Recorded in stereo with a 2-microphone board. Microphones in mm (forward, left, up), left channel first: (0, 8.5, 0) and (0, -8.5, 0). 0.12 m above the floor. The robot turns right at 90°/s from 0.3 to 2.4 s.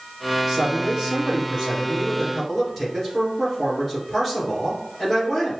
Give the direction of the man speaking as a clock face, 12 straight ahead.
5 o'clock.